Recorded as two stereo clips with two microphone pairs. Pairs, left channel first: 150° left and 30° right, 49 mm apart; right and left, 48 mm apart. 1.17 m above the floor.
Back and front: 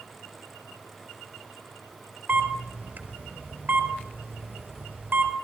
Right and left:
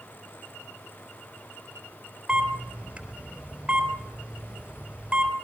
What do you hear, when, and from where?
2.3 s a camera shutter: 20° left, 4 m